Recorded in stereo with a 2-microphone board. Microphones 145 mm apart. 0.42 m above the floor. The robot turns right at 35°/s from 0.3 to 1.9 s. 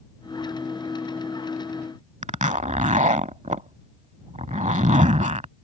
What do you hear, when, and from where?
2.2 s a zipper: 55° right (ahead or behind)